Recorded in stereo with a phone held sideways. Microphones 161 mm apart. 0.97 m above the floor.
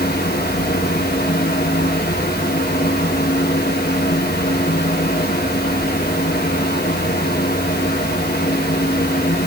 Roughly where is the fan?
Left.